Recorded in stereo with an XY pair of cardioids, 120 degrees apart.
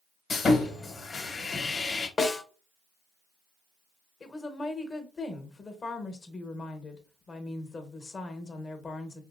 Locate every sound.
0.3 s sawing: 35° left, 1.1 m
2.2 s a snare drum: 30° left, 1.0 m
4.2 s a woman speaking: 30° left, 1.0 m